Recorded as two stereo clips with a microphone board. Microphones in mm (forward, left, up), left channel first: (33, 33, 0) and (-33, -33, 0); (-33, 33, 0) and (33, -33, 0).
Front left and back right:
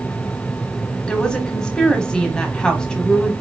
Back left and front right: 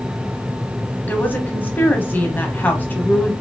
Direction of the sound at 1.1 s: 110° left.